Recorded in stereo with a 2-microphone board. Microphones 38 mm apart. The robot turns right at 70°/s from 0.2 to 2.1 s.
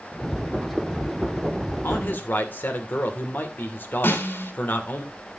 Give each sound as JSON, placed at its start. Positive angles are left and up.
{"t": 1.8, "sound": "a man speaking", "side_deg": 70, "distance_m": 2.5}
{"t": 4.0, "sound": "a snare drum", "side_deg": 75, "distance_m": 3.5}